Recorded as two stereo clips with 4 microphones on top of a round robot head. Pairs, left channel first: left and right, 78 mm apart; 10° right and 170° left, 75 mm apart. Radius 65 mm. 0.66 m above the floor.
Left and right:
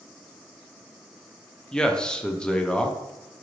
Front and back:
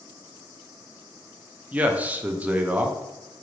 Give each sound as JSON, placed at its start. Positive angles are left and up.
{"t": 1.7, "sound": "a man speaking", "azimuth_deg": 150, "distance_m": 0.5}